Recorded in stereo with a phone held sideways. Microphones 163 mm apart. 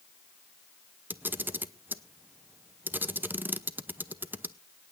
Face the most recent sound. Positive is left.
turn(degrees=-10)  # may be behind; listen again after turning